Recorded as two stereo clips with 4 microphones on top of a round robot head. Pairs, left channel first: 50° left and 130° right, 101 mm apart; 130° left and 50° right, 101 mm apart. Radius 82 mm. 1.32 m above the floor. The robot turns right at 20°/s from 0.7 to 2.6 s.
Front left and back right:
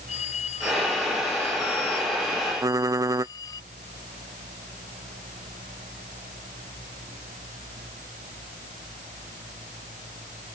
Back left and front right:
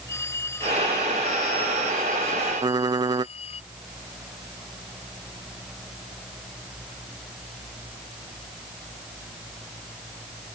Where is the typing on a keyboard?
85° right.